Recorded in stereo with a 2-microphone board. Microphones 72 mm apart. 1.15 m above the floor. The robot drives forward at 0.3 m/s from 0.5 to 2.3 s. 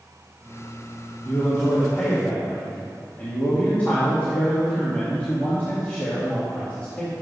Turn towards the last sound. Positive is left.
turn(degrees=25)  # may be behind; listen again after turning